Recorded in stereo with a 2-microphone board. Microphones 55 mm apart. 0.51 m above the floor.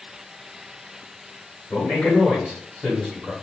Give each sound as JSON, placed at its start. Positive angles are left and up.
{"t": 1.7, "sound": "a man speaking", "side_deg": 20, "distance_m": 1.5}